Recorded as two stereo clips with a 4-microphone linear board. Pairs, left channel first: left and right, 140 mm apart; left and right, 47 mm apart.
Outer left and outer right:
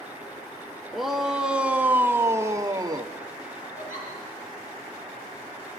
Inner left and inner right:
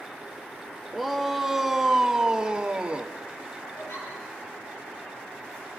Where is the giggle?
70° left (ahead or behind), 9.5 m.